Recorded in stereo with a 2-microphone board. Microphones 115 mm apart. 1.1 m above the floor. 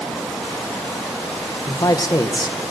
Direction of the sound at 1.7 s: 35° left (ahead or behind).